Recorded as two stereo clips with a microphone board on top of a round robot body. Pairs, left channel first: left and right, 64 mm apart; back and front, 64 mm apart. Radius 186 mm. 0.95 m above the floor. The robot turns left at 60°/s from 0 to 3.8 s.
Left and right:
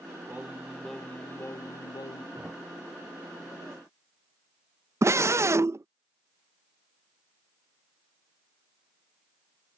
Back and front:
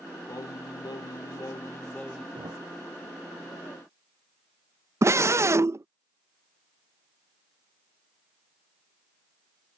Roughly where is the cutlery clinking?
No cutlery clinking in this recording.